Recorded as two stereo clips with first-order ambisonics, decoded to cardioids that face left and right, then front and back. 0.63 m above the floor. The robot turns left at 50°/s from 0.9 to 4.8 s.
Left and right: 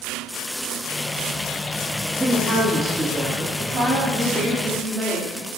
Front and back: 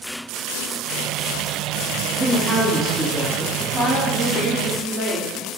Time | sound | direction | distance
2.2 | a woman speaking | 110° right | 0.5 m
3.6 | a woman speaking | 110° right | 1.0 m